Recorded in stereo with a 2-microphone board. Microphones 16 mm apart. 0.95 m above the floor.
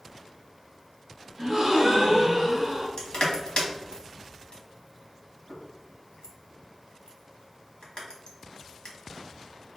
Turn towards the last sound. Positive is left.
turn(degrees=55)  # may be behind; listen again after turning